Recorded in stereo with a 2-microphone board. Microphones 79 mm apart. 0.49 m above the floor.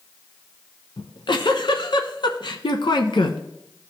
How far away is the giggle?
About 1.0 m.